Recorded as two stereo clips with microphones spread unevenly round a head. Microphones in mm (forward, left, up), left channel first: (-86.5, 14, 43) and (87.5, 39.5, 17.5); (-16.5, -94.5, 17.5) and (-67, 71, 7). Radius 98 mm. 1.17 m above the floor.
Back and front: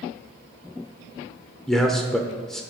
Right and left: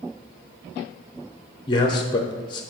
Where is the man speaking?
65° right, 0.7 m.